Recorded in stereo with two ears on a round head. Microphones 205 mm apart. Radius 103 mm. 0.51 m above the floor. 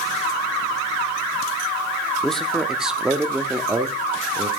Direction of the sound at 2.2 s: 5° left (ahead or behind).